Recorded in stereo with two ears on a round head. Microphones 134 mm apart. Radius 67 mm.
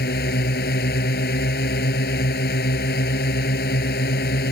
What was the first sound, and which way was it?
A drone, 70° left (ahead or behind).